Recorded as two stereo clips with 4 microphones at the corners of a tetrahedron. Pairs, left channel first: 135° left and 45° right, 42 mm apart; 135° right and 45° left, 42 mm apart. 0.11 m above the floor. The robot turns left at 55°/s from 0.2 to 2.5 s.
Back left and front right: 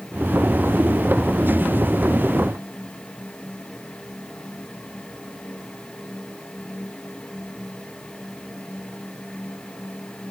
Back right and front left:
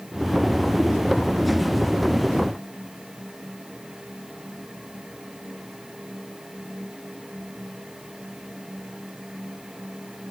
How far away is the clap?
I don't hear a clap.